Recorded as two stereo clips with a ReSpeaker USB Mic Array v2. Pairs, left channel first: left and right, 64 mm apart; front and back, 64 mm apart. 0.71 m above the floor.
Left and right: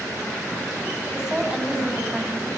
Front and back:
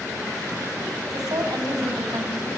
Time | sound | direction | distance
1.1 | a woman speaking | 170° right | 5.5 m